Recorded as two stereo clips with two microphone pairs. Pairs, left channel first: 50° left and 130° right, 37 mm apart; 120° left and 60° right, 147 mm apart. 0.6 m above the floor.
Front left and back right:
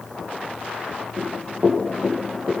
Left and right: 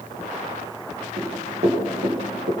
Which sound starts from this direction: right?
Running footsteps, at 1.2 s.